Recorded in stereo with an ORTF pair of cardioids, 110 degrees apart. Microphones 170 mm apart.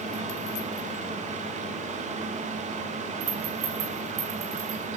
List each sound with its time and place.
0.0 s a fan: 45° right, 2.5 m
3.2 s a rattle: 70° right, 8.5 m